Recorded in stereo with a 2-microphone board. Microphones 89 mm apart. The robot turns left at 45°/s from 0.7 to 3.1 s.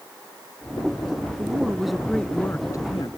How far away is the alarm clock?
No alarm clock in this recording.